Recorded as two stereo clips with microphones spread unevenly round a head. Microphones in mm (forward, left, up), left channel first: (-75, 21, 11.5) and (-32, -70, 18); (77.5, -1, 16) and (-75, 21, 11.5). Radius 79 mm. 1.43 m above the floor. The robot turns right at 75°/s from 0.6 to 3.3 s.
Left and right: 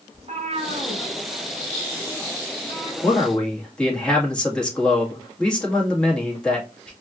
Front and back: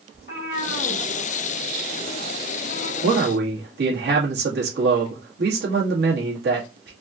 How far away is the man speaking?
About 2 m.